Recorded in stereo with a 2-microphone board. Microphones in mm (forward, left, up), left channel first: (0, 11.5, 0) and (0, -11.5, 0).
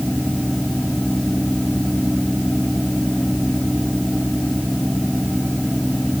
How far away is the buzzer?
No buzzer in this recording.